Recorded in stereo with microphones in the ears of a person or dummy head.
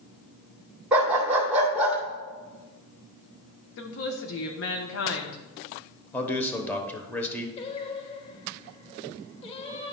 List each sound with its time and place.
0.9 s a dog barking: 5° right (ahead or behind), 1.9 m
3.8 s a woman speaking: 60° left (ahead or behind), 0.9 m
6.1 s a man speaking: 15° left (ahead or behind), 1.0 m
7.6 s singing: 35° left (ahead or behind), 0.9 m